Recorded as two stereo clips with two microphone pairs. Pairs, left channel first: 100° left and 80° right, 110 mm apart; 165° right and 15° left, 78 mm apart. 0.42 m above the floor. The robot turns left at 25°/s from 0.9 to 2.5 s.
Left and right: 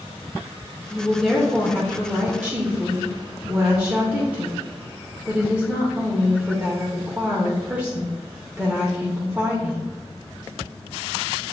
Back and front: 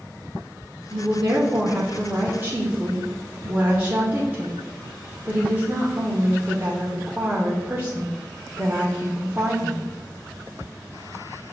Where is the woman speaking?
15° left, 0.8 m; by 9.9 s 25° right, 0.8 m.